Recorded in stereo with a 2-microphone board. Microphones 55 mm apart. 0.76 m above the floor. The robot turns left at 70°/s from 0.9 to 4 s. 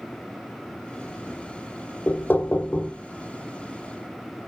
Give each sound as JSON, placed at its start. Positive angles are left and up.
{"t": 2.1, "sound": "knocking", "azimuth_deg": 100, "distance_m": 0.7}